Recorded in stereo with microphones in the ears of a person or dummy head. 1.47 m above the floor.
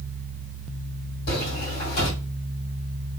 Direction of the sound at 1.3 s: 50° left (ahead or behind).